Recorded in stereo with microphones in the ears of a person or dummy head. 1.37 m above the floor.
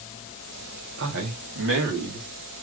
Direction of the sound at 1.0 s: 65° right (ahead or behind).